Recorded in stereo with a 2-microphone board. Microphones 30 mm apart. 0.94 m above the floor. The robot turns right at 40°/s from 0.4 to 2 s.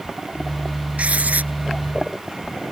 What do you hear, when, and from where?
1.0 s writing: 50° right (ahead or behind); by 1.5 s 70° right (ahead or behind)